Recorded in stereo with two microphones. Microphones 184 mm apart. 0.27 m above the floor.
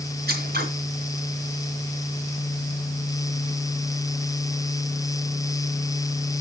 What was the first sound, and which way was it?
Scissors, 55° right (ahead or behind).